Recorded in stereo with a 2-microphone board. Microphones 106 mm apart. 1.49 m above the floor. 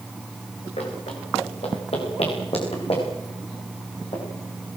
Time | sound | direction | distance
0.8 | running footsteps | 70° left (ahead or behind) | 8.5 m